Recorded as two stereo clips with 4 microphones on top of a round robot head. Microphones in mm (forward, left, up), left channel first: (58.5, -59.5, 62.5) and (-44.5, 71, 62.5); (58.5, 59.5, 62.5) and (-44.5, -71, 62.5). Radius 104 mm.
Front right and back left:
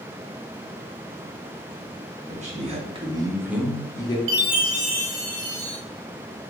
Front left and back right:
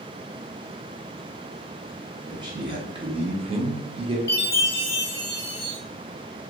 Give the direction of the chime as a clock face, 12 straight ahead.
8 o'clock.